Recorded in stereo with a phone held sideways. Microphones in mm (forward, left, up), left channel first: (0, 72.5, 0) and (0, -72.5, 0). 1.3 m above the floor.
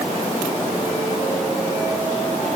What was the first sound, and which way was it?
Only background noise.